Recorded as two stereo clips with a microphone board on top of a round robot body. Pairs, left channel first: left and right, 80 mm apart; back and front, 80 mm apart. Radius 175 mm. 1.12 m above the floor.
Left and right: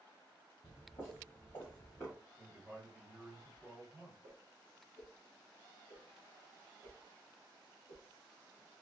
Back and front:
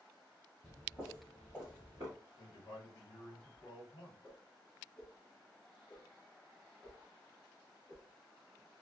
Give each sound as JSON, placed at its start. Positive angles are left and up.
{"t": 0.6, "sound": "footsteps", "azimuth_deg": 90, "distance_m": 1.3}
{"t": 2.4, "sound": "a man speaking", "azimuth_deg": -155, "distance_m": 1.4}
{"t": 4.2, "sound": "a whoosh", "azimuth_deg": -120, "distance_m": 0.5}